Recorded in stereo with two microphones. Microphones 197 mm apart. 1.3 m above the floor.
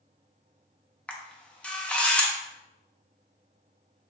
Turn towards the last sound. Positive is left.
turn(degrees=5)  # may be behind; listen again after turning